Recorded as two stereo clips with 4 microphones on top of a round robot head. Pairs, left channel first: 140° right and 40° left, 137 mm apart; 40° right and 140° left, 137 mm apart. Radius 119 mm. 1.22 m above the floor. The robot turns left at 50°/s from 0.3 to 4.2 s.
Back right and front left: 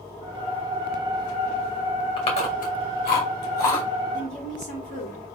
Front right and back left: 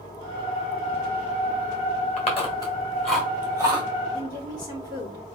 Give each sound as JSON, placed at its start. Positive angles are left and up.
{"t": 2.2, "sound": "chewing", "azimuth_deg": -80, "distance_m": 2.5}
{"t": 4.1, "sound": "a woman speaking", "azimuth_deg": -100, "distance_m": 3.5}